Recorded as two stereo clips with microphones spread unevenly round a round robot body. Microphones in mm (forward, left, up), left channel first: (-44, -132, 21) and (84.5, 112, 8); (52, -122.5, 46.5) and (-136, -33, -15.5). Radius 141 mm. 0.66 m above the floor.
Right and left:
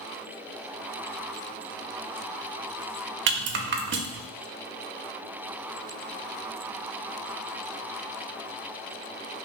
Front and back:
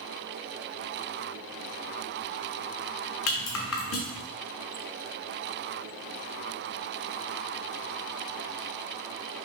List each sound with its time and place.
3.3 s a rattle: 15° left, 0.5 m